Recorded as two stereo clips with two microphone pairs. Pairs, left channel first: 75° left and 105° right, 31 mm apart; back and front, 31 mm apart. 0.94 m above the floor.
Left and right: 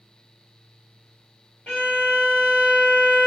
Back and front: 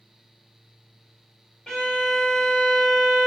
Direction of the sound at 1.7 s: 115° left.